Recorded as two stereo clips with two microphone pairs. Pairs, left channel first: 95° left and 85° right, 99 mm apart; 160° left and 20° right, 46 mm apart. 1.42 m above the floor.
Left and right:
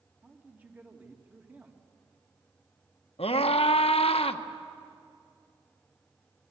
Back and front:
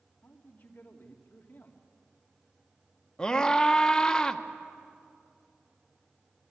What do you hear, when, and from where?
0.2 s a man speaking: 155° right, 2.5 m
3.2 s a scream: 85° left, 1.2 m